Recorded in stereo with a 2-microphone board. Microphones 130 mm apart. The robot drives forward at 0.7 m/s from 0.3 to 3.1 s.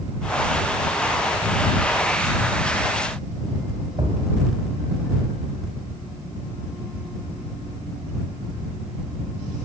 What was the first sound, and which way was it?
A thud, 35° right (ahead or behind).